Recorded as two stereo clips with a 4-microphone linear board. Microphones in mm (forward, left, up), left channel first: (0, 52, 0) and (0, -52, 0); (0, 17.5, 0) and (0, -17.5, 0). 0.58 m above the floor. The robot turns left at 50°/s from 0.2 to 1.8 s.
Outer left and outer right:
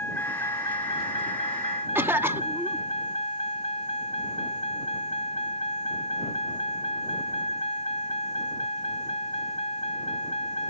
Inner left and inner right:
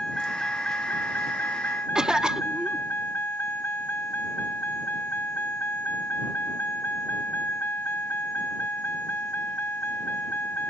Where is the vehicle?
160° left; by 10.7 s 80° left.